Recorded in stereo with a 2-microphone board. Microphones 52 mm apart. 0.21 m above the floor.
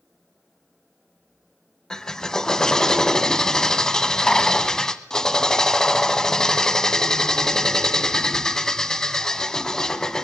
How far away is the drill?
About 0.8 m.